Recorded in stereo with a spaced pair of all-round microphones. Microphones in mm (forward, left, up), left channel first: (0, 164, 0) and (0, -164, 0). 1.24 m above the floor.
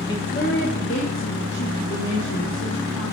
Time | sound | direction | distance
0.1 | a woman speaking | 10° left (ahead or behind) | 1.2 m